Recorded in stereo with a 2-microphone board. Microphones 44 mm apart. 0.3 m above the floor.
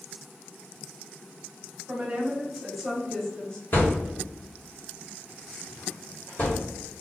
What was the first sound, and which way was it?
A woman speaking, 30° right (ahead or behind).